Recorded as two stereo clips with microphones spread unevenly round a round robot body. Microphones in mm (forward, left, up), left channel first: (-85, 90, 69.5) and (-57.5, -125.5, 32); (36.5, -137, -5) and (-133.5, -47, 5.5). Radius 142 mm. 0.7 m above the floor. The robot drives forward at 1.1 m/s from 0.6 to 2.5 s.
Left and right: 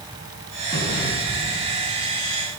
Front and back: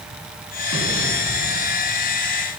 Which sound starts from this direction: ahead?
An explosion, at 0.7 s.